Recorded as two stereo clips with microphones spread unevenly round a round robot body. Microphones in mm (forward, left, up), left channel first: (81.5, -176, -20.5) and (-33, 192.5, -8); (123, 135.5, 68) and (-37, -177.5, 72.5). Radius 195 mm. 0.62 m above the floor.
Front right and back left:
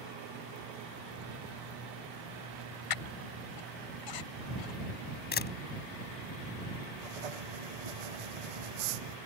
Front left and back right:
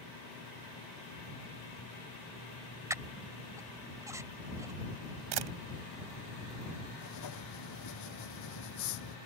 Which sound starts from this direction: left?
Writing, at 7.0 s.